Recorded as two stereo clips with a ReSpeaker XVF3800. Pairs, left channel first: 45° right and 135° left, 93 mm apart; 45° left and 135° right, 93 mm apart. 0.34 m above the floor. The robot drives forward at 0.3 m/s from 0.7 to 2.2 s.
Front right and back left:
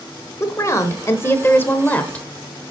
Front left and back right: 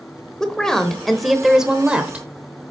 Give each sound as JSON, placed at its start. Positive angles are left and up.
{"t": 0.4, "sound": "a woman speaking", "azimuth_deg": -35, "distance_m": 1.0}